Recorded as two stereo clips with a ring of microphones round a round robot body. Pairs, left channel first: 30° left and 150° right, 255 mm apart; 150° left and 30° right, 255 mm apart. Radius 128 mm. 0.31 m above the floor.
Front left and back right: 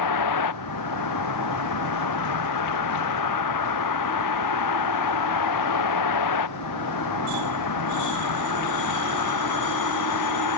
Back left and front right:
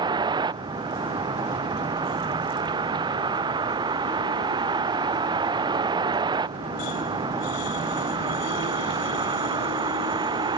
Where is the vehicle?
45° left.